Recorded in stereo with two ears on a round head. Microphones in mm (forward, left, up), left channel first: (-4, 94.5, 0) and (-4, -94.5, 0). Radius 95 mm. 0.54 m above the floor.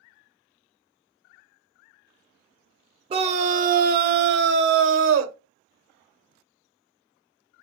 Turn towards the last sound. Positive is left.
turn(degrees=-65)  # may be behind; listen again after turning